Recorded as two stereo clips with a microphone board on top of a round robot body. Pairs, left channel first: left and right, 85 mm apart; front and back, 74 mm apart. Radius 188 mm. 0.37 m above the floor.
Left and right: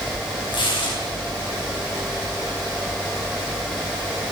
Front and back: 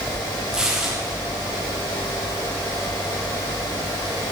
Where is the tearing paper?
100° left, 4 m.